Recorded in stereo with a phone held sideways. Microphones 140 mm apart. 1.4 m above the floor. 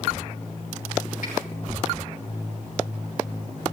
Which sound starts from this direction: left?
A finger snap, at 1.2 s.